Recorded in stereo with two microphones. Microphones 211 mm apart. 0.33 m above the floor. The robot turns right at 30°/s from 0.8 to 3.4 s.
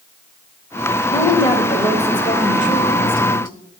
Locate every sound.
1.1 s a woman speaking: 25° left, 1.3 m; by 3.5 s 95° left, 1.3 m